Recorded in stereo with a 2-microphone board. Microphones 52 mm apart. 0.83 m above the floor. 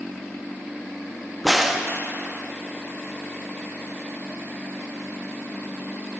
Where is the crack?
Centre (ahead or behind), 0.7 m.